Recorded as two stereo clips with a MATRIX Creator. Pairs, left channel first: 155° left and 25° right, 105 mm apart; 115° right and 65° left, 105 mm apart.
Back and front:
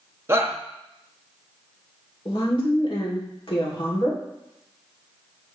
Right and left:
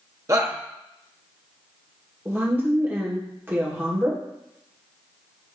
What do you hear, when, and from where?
0.3 s a shout: 30° left, 1.0 m
2.2 s a woman speaking: 135° left, 2 m